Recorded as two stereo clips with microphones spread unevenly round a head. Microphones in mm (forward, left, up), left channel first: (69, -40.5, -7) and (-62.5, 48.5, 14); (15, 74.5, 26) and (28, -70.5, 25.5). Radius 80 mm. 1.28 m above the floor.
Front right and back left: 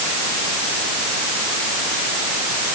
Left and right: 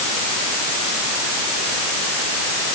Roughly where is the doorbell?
No doorbell in this recording.